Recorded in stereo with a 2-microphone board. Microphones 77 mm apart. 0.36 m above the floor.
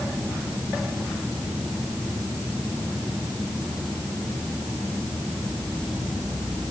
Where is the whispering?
I don't hear whispering.